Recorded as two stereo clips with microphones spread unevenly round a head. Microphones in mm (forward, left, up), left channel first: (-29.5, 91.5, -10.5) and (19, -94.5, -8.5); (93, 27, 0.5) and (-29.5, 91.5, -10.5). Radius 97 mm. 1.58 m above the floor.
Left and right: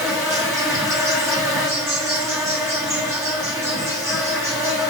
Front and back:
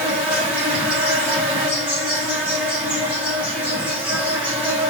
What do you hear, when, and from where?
0.0 s an insect: 125° right, 0.9 m